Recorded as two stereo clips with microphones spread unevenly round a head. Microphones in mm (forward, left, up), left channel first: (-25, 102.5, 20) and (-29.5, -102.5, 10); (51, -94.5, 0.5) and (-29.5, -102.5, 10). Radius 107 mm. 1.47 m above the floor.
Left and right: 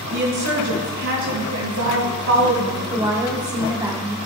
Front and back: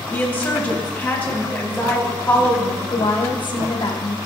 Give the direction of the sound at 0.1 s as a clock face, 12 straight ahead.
2 o'clock.